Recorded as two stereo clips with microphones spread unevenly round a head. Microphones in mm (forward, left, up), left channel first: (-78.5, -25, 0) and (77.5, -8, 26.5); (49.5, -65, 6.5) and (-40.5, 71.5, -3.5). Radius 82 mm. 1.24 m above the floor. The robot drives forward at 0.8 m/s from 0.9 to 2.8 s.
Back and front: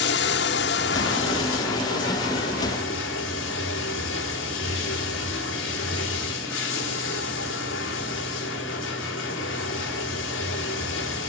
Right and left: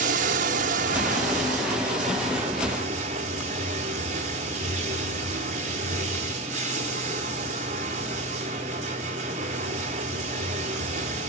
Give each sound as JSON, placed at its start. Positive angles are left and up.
{"t": 0.0, "sound": "running water", "azimuth_deg": 165, "distance_m": 0.8}